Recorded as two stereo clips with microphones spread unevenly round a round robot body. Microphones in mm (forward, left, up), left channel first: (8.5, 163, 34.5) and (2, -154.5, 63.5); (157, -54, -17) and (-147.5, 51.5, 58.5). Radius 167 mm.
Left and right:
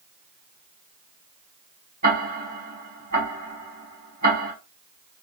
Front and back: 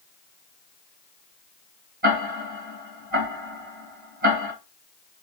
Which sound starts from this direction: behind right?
Ticking, at 2.0 s.